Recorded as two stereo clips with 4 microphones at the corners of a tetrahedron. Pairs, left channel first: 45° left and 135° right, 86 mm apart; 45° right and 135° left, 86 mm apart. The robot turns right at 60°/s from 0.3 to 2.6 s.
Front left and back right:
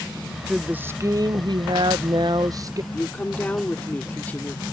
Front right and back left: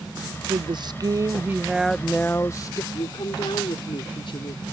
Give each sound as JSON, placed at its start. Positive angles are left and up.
{"t": 0.5, "sound": "a woman speaking", "azimuth_deg": 145}
{"t": 2.9, "sound": "a woman speaking", "azimuth_deg": -25}